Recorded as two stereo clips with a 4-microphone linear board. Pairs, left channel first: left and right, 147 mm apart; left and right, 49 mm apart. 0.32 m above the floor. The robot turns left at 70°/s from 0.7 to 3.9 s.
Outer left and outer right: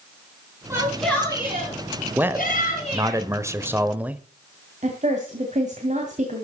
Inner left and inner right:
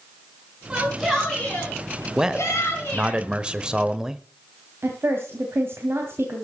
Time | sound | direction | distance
0.7 | a shout | 160° right | 4.5 m
2.1 | a man speaking | 10° right (ahead or behind) | 0.9 m
4.8 | a woman speaking | 55° right (ahead or behind) | 2.5 m